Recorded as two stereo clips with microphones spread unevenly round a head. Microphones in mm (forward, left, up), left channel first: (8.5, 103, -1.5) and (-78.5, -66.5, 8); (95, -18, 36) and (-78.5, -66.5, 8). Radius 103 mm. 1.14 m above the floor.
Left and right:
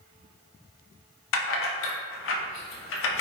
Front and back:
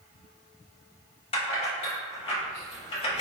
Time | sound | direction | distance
1.3 | keys jangling | 80° left | 0.7 m